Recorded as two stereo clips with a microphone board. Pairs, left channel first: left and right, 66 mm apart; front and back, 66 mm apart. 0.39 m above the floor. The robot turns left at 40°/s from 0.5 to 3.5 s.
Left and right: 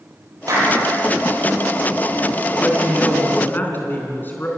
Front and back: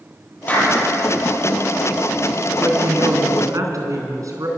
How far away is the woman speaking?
About 4 m.